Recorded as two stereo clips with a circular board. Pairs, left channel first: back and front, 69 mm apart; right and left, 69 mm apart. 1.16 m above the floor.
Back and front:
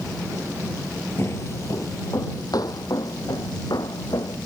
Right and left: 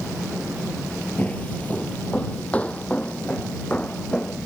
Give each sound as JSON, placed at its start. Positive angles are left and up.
{"t": 1.2, "sound": "footsteps", "azimuth_deg": -145}